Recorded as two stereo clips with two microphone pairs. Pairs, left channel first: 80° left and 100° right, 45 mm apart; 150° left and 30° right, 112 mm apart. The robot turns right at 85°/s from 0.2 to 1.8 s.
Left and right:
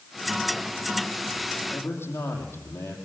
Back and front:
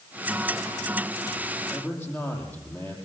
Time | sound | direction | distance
1.7 | a man speaking | 70° left | 5.5 m